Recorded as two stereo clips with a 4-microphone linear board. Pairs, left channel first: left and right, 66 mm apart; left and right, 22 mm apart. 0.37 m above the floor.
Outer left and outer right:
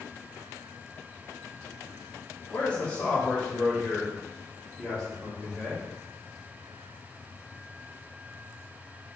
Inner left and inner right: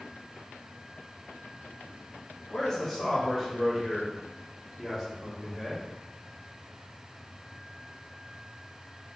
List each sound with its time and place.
2.5 s a man speaking: 25° left (ahead or behind), 1.2 m; by 5.9 s 5° left (ahead or behind), 3 m